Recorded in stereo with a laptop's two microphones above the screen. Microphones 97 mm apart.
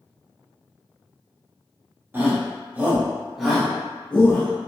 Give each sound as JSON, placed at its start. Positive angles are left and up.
{"t": 2.1, "sound": "a shout", "side_deg": -20, "distance_m": 0.9}